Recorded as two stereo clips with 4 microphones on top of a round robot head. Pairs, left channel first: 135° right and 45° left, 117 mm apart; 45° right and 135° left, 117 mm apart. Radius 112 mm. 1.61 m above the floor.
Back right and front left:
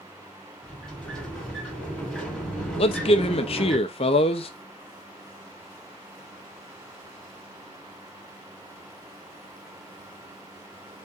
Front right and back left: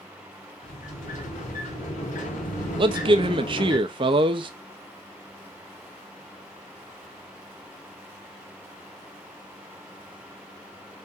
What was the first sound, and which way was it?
A sliding door, 50° right.